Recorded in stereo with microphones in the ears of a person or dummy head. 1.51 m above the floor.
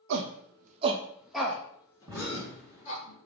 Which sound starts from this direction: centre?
An explosion, at 2.1 s.